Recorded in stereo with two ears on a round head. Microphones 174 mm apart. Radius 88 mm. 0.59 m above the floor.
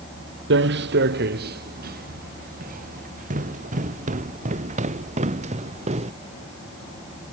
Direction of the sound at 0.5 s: 65° right (ahead or behind).